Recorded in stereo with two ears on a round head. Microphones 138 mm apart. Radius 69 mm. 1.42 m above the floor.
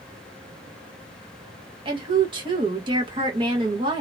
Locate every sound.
1.9 s a woman speaking: 35° right (ahead or behind), 1.4 m